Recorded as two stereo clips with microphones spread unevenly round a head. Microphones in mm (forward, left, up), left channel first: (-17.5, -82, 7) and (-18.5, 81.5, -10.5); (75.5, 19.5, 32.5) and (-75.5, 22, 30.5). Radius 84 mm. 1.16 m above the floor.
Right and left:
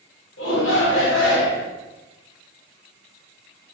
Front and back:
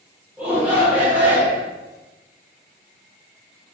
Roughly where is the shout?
Right.